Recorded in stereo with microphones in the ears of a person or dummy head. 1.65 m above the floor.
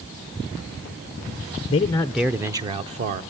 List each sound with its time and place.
1.7 s a man speaking: 25° left (ahead or behind), 0.5 m; by 3.2 s 45° right (ahead or behind), 0.8 m